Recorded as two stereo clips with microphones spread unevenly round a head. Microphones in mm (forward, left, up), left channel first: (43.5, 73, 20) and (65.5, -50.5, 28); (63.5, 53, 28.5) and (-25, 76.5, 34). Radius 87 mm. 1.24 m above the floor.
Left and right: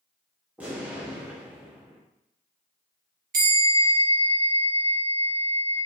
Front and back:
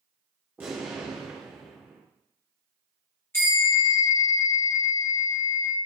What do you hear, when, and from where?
0.6 s an explosion: 145° right, 0.6 m
3.3 s a bell: 85° right, 1.2 m